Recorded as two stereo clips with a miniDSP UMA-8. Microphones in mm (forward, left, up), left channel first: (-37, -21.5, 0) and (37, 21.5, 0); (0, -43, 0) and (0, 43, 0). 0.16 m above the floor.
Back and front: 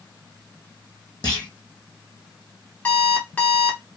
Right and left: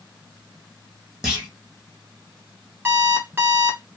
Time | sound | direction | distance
1.2 | a clunk | 170° left | 1.6 m
2.9 | an alarm clock | 150° left | 1.2 m